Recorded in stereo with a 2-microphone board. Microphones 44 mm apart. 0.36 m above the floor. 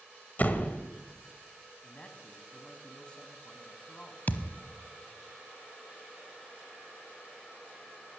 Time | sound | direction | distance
0.4 | a door slam | 40° left (ahead or behind) | 1.3 m
1.8 | a man speaking | 20° left (ahead or behind) | 2.5 m
4.3 | a thud | 45° left (ahead or behind) | 0.9 m